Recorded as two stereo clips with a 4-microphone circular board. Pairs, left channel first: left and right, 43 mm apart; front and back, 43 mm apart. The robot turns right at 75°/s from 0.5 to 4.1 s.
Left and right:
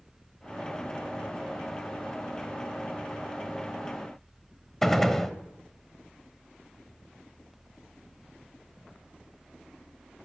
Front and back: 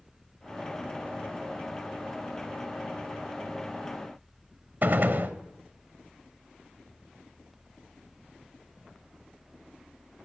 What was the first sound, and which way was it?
A gunshot, 170° left.